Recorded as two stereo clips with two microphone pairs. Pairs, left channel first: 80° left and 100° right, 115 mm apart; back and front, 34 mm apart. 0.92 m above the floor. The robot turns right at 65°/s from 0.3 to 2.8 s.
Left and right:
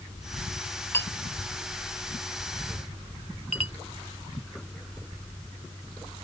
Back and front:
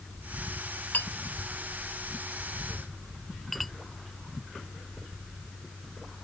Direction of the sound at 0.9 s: 150° left.